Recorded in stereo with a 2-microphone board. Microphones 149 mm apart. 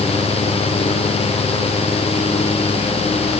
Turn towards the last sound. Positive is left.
No sound to turn to.